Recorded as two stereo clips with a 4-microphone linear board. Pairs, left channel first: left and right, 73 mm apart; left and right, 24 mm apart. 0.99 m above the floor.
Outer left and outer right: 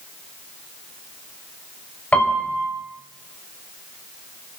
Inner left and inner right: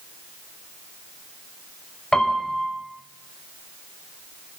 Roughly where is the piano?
Left.